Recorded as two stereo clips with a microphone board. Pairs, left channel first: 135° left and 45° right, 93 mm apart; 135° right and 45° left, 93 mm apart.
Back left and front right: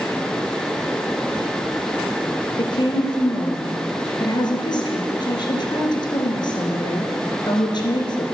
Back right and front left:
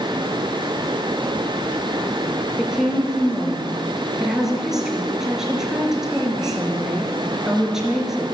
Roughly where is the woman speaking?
Behind left.